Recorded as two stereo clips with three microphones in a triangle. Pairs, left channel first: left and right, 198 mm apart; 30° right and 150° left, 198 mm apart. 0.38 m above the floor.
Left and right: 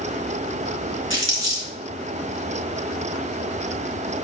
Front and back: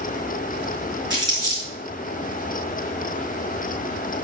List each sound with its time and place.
1.1 s crumpling: 80° left, 3.5 m